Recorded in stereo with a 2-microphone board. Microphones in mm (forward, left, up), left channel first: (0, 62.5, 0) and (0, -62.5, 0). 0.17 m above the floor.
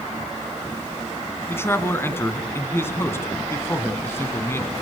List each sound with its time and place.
1.5 s a man speaking: 20° left (ahead or behind), 1.9 m